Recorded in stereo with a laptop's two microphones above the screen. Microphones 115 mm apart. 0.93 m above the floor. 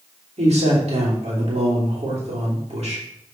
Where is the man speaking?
70° right (ahead or behind), 3 m.